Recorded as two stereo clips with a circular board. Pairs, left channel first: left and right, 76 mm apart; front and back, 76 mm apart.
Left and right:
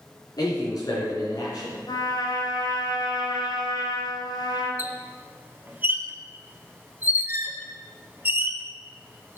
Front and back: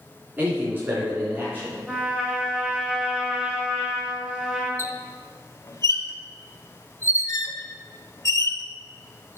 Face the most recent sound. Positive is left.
turn(degrees=-30)